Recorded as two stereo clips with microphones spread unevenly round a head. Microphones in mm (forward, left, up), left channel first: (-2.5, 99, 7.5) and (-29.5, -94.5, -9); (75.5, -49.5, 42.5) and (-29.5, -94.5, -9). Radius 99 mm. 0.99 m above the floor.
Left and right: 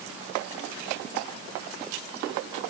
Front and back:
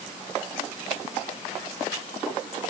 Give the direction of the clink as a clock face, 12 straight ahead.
I don't hear a clink.